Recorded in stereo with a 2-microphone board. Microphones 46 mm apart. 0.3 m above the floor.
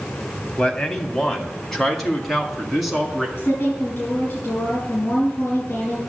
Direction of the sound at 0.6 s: 20° left (ahead or behind).